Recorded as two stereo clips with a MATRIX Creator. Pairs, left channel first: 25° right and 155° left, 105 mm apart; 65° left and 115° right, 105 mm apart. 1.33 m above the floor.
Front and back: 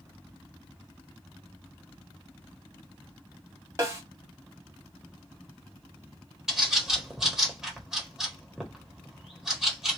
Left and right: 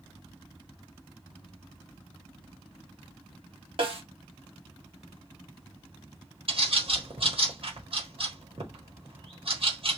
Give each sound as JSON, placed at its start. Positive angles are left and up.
{"t": 3.8, "sound": "a snare drum", "azimuth_deg": -140, "distance_m": 1.5}
{"t": 6.5, "sound": "a bird", "azimuth_deg": -120, "distance_m": 1.2}